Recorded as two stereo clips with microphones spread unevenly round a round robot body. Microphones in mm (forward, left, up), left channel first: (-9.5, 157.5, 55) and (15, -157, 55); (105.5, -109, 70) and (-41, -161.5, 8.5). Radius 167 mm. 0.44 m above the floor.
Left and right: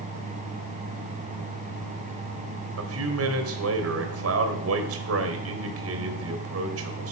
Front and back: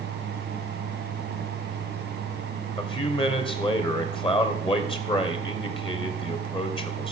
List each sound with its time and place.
2.8 s a man speaking: 45° right, 2.5 m